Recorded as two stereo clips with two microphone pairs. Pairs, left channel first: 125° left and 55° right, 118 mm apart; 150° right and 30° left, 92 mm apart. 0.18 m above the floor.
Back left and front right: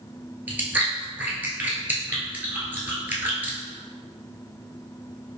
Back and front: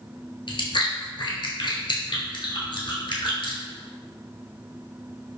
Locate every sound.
0.5 s chewing: 125° right, 0.9 m